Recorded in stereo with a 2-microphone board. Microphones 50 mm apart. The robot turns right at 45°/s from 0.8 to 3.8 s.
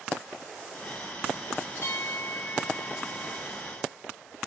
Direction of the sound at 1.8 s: 75° left.